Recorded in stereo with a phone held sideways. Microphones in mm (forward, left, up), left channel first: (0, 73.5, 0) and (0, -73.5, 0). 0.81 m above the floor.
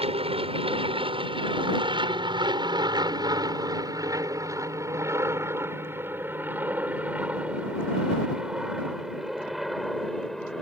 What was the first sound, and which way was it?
An aircraft, 40° right (ahead or behind).